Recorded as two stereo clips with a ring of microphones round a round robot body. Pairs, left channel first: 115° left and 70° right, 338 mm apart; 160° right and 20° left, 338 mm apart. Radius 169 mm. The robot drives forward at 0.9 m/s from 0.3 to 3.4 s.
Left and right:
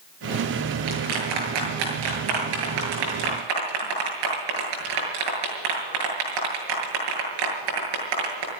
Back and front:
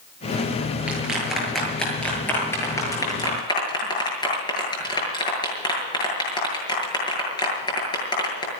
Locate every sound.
0.9 s a clap: 65° right, 8 m; by 8.5 s 80° right, 7.5 m